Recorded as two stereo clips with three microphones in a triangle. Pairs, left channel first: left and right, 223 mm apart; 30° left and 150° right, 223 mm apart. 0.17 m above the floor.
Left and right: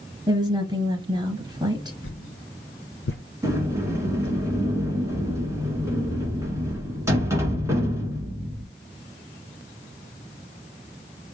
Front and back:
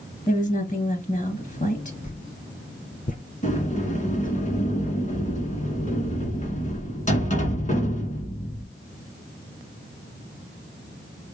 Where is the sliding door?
15° right, 1.6 m.